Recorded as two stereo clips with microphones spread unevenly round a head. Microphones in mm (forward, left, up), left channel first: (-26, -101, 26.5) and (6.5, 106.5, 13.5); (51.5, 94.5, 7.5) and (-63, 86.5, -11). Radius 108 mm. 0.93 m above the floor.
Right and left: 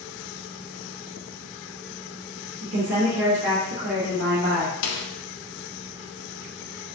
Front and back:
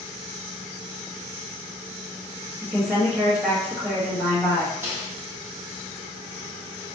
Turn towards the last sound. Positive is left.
turn(degrees=-100)